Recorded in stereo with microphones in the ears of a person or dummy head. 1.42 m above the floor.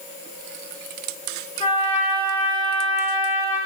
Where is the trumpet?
25° left (ahead or behind), 4 m.